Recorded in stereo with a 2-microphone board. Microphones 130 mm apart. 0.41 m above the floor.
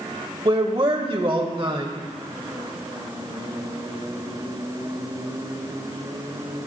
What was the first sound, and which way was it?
A man speaking, 40° right (ahead or behind).